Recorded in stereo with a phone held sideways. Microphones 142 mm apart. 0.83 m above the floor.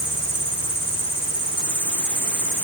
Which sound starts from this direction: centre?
An insect, at 0.0 s.